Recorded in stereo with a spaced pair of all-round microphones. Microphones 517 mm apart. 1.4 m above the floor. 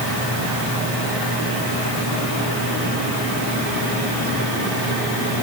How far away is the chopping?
No chopping in this recording.